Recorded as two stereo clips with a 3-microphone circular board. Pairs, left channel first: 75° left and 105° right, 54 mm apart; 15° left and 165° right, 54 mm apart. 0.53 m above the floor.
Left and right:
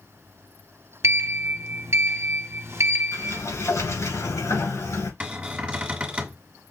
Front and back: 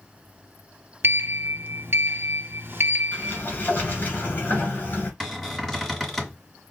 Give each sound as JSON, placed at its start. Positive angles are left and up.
{"t": 1.0, "sound": "a sliding door", "azimuth_deg": -130, "distance_m": 0.5}
{"t": 3.1, "sound": "a sliding door", "azimuth_deg": 70, "distance_m": 2.0}
{"t": 5.2, "sound": "a cupboard door", "azimuth_deg": -65, "distance_m": 1.4}